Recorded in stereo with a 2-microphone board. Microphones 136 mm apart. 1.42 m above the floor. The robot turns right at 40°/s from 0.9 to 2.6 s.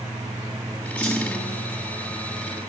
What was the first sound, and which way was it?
A clunk, 15° left (ahead or behind).